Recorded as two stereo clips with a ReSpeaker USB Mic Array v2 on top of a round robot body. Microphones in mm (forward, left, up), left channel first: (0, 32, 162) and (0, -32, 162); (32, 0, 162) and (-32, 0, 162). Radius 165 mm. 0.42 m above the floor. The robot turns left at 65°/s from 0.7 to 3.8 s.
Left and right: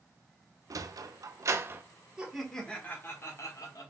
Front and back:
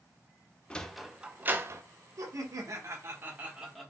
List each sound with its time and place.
0.7 s a sliding door: 75° right, 0.6 m; by 1.8 s 145° right, 0.6 m
2.2 s laughter: 165° right, 1.3 m; by 3.9 s 90° left, 1.3 m